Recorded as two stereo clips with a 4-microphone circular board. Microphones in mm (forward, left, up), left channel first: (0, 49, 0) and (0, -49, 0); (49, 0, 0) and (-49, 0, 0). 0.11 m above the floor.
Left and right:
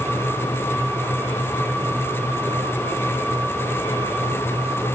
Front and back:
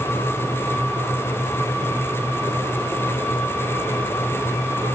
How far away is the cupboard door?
No cupboard door in this recording.